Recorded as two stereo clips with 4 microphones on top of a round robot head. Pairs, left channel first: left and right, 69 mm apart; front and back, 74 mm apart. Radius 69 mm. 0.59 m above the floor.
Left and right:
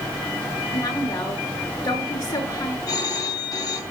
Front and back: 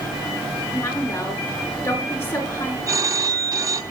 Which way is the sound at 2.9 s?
135° left.